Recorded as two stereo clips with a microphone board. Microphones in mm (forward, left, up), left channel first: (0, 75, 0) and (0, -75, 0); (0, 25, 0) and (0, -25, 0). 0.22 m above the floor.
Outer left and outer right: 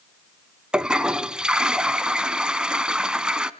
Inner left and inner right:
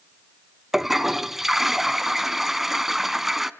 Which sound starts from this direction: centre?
A toilet flushing, at 0.7 s.